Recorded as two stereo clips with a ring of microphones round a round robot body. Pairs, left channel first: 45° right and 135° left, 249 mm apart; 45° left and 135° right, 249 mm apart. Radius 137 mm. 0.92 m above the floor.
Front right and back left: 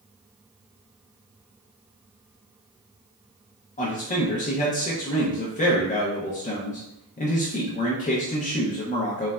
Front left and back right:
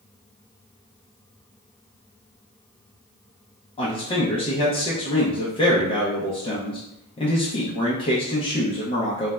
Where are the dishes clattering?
No dishes clattering in this recording.